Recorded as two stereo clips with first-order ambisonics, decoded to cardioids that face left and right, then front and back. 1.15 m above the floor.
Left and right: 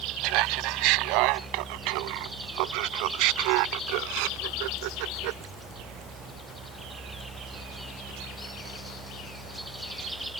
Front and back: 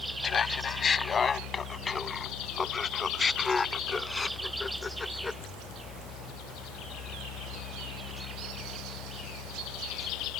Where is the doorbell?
I don't hear a doorbell.